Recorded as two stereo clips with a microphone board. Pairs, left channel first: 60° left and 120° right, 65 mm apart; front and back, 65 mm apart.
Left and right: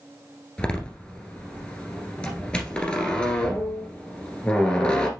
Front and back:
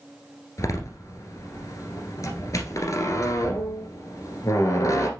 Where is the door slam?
15° right, 1.7 m.